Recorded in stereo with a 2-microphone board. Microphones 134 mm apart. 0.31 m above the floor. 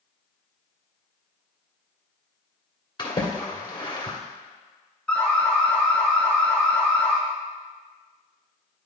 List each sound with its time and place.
3.0 s a splash: 35° left (ahead or behind), 1.6 m
5.1 s an alarm: 5° left (ahead or behind), 2 m